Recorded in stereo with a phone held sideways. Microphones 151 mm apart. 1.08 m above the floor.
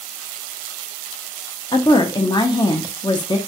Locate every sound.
1.7 s a woman speaking: 30° left (ahead or behind), 0.5 m